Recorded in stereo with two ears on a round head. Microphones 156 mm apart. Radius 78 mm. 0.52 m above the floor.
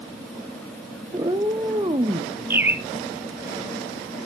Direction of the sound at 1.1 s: 20° right (ahead or behind).